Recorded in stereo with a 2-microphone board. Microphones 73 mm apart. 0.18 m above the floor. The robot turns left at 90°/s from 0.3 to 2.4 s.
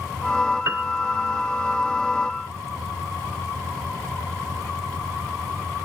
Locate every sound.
0.7 s a piano: 50° right (ahead or behind); by 0.8 s 35° right (ahead or behind)